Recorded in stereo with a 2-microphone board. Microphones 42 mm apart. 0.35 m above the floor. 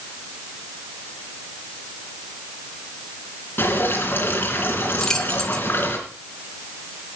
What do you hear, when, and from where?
3.6 s dripping: 50° left (ahead or behind), 3 m
5.0 s keys jangling: 15° left (ahead or behind), 1.0 m